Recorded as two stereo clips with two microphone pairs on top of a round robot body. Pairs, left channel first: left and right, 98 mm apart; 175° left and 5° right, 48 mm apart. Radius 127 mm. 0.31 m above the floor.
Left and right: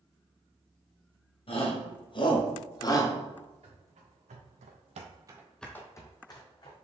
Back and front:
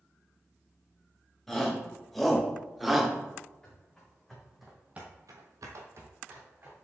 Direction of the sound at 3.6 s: 105° right.